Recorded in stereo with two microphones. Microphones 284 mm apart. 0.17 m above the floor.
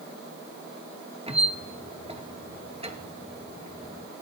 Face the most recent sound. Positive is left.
turn(degrees=-20)  # may be behind; listen again after turning